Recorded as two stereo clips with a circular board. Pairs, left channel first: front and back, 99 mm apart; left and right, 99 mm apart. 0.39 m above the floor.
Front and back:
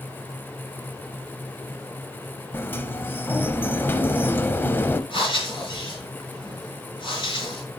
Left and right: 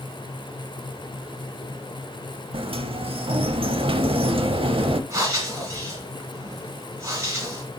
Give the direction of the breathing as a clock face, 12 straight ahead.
1 o'clock.